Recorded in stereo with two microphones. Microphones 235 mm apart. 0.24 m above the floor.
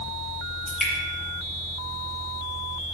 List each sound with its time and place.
0.7 s dripping: centre (ahead or behind), 7 m